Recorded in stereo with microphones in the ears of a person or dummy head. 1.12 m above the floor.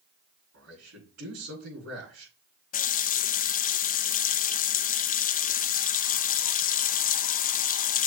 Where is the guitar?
No guitar in this recording.